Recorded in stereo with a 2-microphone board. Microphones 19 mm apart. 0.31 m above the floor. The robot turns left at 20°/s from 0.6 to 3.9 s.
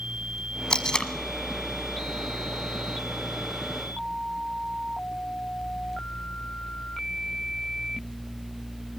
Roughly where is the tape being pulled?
Left.